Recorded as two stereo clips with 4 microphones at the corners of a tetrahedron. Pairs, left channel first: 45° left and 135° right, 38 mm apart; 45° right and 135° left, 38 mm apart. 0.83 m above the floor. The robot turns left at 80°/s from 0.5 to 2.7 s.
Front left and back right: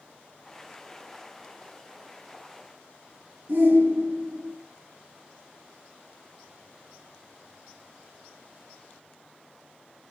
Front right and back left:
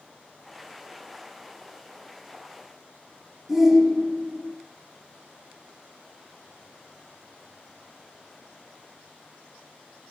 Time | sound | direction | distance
3.5 | a shout | 140° right | 1.8 m